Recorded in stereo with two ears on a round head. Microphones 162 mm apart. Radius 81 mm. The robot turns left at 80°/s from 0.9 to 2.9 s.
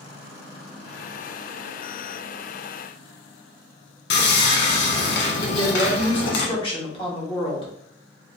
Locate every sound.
4.1 s sawing: 65° left (ahead or behind), 0.8 m
5.5 s a woman speaking: 30° left (ahead or behind), 1.1 m